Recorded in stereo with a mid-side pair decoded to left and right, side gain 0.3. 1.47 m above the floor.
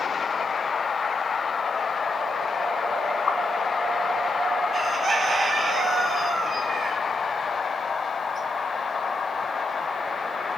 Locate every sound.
3.3 s a pop: 55° left, 1.5 m
4.7 s a bird: 50° right, 1.1 m